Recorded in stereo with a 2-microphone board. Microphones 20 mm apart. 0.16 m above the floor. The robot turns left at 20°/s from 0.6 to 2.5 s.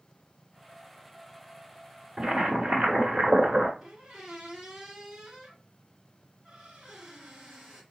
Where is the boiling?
45° right (ahead or behind), 1.2 m.